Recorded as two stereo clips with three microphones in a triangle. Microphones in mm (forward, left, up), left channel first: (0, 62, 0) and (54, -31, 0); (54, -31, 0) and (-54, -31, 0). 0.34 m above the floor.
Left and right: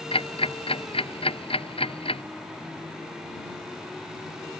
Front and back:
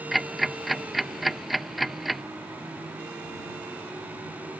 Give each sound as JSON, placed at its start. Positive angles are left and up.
{"t": 0.1, "sound": "ticking", "azimuth_deg": 90}